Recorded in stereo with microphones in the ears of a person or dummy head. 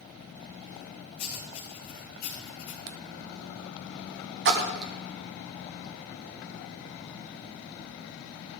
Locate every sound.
1.2 s writing: 40° left (ahead or behind), 2.5 m
2.9 s writing: 60° right (ahead or behind), 0.6 m
4.5 s a splash: 60° right (ahead or behind), 1.1 m